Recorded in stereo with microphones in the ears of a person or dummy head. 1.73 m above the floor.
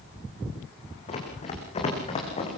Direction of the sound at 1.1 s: 30° left (ahead or behind).